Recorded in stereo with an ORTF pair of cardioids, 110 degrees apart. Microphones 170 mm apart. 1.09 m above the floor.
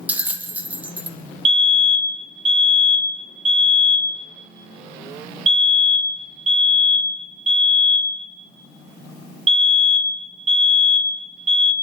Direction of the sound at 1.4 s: 40° right.